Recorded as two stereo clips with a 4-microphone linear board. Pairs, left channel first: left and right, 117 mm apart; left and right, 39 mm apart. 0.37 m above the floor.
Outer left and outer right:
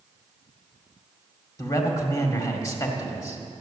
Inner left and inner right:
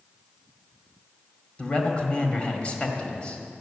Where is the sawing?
I don't hear sawing.